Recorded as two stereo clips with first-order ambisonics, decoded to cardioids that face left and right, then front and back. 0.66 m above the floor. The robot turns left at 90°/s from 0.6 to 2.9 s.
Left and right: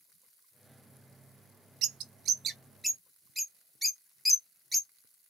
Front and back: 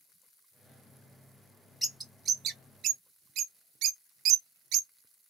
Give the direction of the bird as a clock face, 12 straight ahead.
3 o'clock.